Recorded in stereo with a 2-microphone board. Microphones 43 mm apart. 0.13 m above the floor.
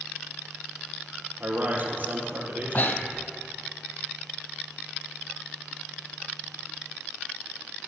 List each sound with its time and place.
1.4 s a man speaking: 45° right (ahead or behind), 3 m
2.7 s breathing: 50° left (ahead or behind), 0.7 m